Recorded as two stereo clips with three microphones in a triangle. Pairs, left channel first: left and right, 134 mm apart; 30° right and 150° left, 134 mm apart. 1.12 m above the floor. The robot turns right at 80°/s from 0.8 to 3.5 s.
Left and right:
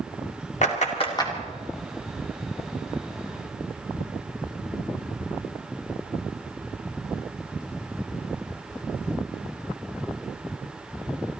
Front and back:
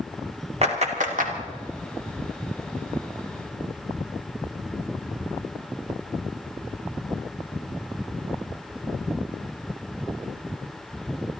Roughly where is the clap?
Behind left.